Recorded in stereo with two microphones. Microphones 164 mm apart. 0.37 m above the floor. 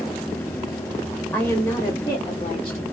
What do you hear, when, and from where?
1.3 s a woman speaking: 5° left (ahead or behind), 1.8 m; by 2.8 s 40° left (ahead or behind), 1.8 m